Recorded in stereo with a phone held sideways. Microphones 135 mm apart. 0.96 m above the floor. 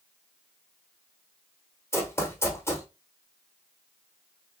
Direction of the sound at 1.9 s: 20° left (ahead or behind).